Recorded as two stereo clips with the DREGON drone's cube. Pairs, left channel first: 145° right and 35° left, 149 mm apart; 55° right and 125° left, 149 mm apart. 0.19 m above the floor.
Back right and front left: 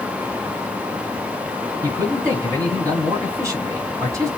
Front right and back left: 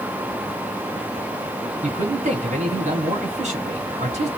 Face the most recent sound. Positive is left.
turn(degrees=100)